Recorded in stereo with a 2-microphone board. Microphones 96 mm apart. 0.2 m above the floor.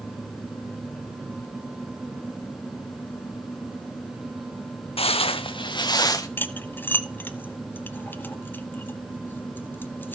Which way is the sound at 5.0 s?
80° left.